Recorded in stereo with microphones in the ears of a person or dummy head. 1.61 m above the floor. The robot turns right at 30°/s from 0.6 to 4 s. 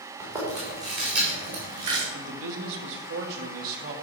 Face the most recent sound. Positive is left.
turn(degrees=-35)